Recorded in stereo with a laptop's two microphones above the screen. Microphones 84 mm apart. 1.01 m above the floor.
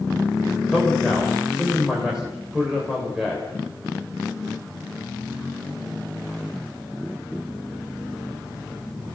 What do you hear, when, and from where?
0.7 s a man speaking: 5° right (ahead or behind), 4 m